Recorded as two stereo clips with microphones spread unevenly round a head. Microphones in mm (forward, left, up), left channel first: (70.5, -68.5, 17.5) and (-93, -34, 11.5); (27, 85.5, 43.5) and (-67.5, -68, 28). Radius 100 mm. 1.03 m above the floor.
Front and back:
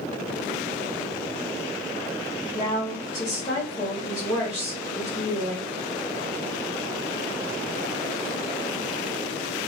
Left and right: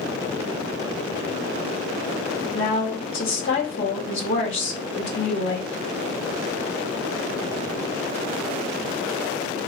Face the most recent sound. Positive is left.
turn(degrees=65)